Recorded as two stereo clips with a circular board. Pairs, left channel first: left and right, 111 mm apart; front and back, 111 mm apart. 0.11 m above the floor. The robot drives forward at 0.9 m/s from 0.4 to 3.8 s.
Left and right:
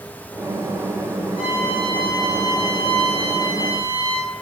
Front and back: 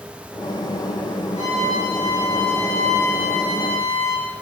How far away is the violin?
About 4.5 m.